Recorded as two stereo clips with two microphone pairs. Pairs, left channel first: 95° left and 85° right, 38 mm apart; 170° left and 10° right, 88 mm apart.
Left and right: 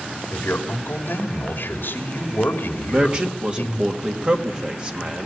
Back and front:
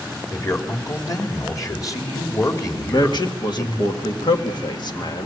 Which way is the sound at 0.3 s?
120° left.